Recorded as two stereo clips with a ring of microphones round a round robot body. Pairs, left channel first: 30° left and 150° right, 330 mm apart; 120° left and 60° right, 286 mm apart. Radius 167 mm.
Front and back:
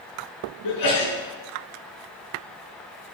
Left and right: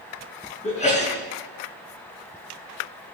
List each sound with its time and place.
0.6 s a sneeze: 55° left, 6 m